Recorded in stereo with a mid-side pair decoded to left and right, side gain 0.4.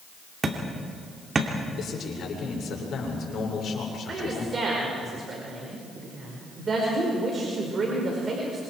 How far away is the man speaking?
About 6.5 m.